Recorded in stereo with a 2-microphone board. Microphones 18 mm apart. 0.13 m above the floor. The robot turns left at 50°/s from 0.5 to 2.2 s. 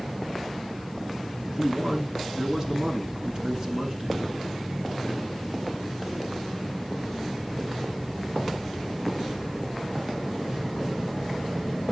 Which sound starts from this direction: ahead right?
A man speaking, at 1.5 s.